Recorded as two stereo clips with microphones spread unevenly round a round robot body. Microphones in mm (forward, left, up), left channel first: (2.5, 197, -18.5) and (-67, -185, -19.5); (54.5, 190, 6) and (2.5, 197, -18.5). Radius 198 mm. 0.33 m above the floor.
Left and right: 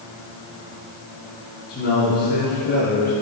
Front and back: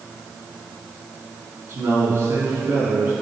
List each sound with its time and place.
1.7 s a man speaking: 145° left, 3 m